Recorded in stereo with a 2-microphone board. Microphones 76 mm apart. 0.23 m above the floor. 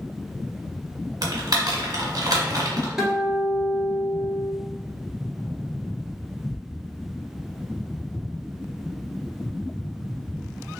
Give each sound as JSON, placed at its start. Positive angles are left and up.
{"t": 1.2, "sound": "typing on a keyboard", "side_deg": -60, "distance_m": 1.1}
{"t": 3.0, "sound": "a guitar", "side_deg": -10, "distance_m": 1.3}